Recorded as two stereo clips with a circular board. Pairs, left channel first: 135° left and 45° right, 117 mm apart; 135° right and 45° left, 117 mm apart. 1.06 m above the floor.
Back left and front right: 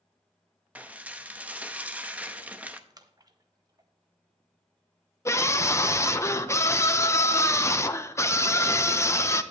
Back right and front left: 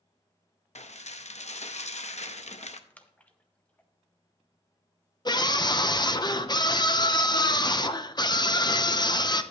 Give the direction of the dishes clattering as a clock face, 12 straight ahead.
4 o'clock.